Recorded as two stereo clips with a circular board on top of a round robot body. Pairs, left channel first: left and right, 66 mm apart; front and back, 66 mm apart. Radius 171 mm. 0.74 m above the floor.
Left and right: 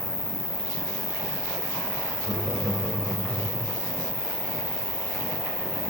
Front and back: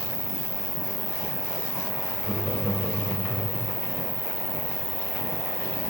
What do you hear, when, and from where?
0.0 s an insect: 130° left, 1.0 m
2.2 s laughter: 120° right, 2.5 m